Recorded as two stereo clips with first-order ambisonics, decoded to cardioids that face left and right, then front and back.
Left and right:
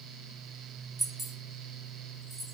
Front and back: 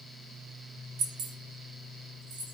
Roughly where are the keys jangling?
Behind.